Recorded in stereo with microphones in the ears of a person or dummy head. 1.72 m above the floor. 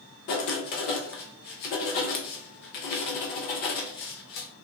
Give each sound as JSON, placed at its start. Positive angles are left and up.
{"t": 0.3, "sound": "writing", "side_deg": 35, "distance_m": 0.5}